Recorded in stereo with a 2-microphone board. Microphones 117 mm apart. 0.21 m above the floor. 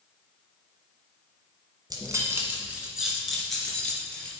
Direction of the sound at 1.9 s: 35° right (ahead or behind).